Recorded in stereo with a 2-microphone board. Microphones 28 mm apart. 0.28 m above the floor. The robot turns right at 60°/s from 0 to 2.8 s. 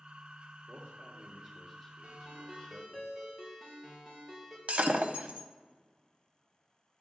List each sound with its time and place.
0.7 s a man speaking: 80° right, 3 m; by 3.0 s 45° left, 3 m
2.0 s a ringtone: 45° right, 4 m; by 4.6 s straight ahead, 4 m
4.7 s breaking glass: 50° right (ahead or behind), 0.8 m